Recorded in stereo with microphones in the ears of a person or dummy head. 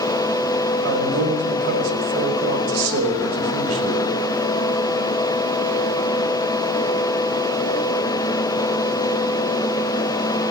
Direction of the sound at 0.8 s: 80° right.